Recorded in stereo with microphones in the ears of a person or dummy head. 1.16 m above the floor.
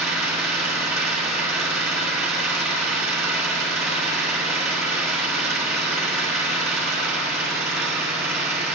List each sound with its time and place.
0.0 s an engine running: 5° right (ahead or behind), 1.3 m